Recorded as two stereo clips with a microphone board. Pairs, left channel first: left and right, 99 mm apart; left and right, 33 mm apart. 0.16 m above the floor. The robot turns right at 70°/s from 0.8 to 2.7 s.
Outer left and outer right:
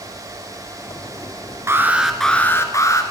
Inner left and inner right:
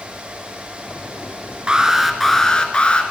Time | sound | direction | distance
1.7 | an alarm | 35° right | 1.7 m